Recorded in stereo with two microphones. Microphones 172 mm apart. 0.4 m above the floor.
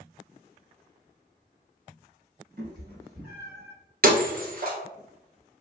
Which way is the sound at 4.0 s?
60° right (ahead or behind).